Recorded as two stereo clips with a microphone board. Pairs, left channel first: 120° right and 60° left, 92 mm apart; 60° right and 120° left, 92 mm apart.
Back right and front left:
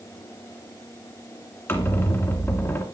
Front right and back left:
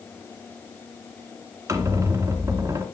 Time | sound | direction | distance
1.7 | a squeak | 175° left | 2 m